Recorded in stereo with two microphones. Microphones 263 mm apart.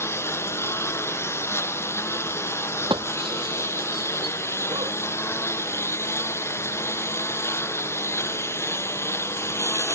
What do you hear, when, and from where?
0.0 s a lawn mower: 10° left (ahead or behind)
2.9 s breaking glass: 20° right (ahead or behind)